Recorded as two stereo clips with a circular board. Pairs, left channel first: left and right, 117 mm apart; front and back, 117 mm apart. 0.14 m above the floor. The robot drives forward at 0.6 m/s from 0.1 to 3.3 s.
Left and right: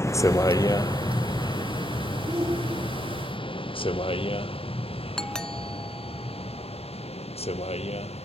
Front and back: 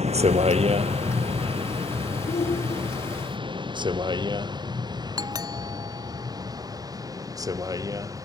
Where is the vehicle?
155° left; by 8.2 s 120° left.